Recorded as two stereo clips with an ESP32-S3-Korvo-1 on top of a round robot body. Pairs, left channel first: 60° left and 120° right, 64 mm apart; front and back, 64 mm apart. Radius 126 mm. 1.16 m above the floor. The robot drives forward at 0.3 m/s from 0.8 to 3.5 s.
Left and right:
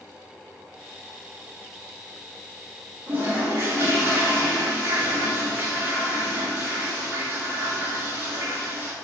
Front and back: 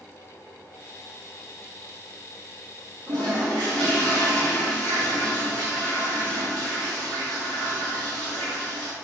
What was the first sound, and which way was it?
A toilet flushing, straight behind.